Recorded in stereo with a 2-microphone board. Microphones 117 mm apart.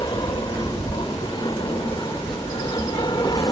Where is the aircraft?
40° left (ahead or behind).